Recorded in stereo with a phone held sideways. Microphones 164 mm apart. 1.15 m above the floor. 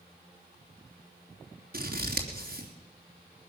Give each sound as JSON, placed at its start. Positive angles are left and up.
{"t": 1.7, "sound": "scissors", "side_deg": -65, "distance_m": 3.0}